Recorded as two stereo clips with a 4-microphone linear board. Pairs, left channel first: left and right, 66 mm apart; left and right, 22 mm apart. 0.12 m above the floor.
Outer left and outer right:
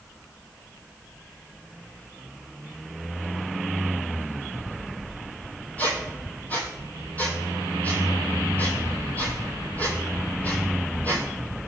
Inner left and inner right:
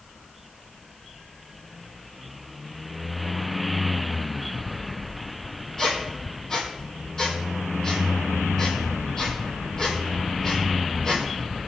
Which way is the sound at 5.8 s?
25° left (ahead or behind).